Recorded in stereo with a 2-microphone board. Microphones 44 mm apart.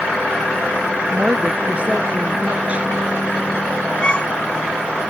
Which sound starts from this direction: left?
A violin, at 4.0 s.